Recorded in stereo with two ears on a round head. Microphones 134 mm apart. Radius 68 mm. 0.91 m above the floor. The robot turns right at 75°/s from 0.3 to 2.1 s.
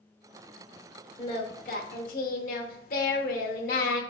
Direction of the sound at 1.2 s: 30° left.